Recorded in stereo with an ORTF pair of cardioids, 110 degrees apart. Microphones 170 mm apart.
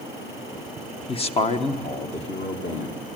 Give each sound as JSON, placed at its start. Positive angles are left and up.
{"t": 1.1, "sound": "a man speaking", "azimuth_deg": 35, "distance_m": 1.3}